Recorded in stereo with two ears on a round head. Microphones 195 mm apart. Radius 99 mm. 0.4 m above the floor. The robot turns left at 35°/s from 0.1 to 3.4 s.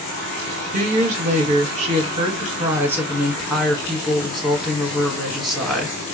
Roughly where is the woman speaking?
Right.